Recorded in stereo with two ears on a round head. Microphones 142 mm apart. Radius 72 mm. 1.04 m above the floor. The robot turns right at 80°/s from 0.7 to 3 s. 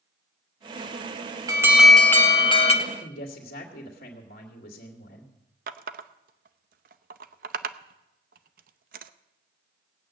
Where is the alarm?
35° right, 1.5 m; by 2.7 s 65° left, 1.5 m.